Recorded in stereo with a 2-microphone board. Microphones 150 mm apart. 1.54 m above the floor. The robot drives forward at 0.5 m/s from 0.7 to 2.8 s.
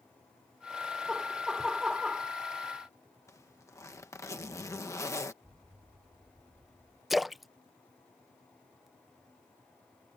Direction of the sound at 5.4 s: 50° right (ahead or behind).